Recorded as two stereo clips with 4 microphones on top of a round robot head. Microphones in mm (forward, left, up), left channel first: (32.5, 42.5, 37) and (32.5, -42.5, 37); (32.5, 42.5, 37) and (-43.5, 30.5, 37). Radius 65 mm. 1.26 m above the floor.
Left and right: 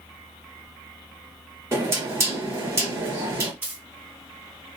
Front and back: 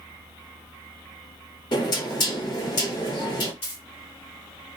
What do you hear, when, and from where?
1.7 s knocking: 30° right, 1.4 m
3.6 s a dropped coin: 20° right, 1.6 m